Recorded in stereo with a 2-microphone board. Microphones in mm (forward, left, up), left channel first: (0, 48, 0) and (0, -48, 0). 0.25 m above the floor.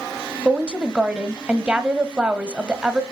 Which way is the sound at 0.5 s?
10° right (ahead or behind).